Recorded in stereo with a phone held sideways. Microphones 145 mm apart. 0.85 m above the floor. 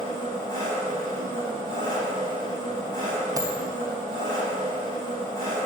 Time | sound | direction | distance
0.0 | an engine running | 25° left (ahead or behind) | 3.5 m
3.4 | a dropped coin | 25° right (ahead or behind) | 1.4 m